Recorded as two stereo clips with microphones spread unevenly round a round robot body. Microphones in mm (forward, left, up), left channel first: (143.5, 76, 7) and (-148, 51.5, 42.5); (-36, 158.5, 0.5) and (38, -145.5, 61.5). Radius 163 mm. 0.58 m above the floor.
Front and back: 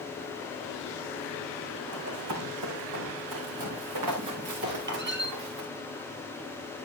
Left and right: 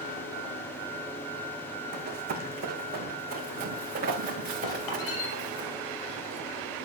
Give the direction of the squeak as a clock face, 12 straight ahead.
8 o'clock.